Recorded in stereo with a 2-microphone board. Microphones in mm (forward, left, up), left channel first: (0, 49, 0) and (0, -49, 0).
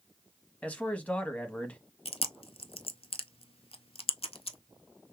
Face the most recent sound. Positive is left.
turn(degrees=75)  # may be behind; listen again after turning